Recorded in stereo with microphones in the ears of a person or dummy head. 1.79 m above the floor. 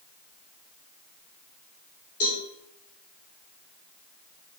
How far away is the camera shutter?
I don't hear a camera shutter.